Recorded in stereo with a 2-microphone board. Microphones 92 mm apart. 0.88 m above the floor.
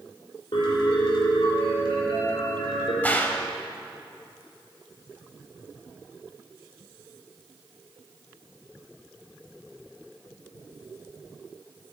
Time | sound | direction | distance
0.5 | a piano | 70° left (ahead or behind) | 2.5 m
3.0 | a gunshot | 20° left (ahead or behind) | 0.7 m